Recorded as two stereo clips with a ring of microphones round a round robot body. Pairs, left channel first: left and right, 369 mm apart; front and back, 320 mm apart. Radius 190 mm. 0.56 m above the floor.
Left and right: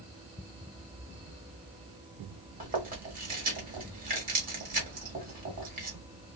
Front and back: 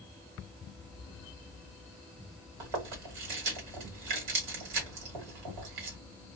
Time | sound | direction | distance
2.6 | chewing | 160° right | 1.2 m